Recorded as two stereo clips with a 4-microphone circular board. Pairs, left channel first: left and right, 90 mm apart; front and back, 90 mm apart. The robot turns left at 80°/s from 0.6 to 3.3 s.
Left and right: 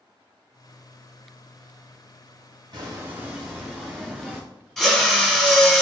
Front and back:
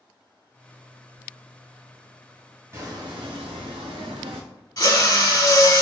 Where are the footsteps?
120° right, 1.8 m; by 4.4 s 175° right, 0.9 m.